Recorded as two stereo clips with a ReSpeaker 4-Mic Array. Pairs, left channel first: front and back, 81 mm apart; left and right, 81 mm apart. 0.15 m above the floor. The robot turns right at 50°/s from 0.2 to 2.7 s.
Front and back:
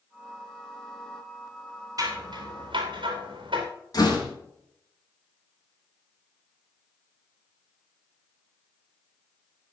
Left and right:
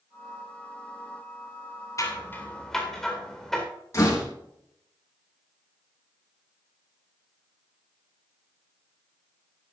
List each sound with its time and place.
2.0 s scissors: 140° left, 4 m; by 3.6 s 175° left, 4 m
3.9 s a door slam: 40° left, 5 m